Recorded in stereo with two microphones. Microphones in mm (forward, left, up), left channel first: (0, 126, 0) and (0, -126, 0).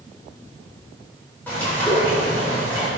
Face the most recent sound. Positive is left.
turn(degrees=5)  # may be behind; listen again after turning